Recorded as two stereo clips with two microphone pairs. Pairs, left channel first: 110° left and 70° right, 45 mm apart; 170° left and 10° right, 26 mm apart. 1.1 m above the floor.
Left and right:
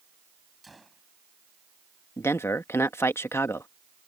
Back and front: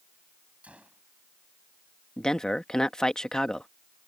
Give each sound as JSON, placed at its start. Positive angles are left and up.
{"t": 0.6, "sound": "a gunshot", "azimuth_deg": 20}
{"t": 2.2, "sound": "a man speaking", "azimuth_deg": 110}